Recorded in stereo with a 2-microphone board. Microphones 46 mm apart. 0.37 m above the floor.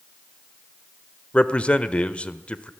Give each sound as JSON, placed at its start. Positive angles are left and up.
{"t": 1.3, "sound": "a man speaking", "side_deg": 25, "distance_m": 1.1}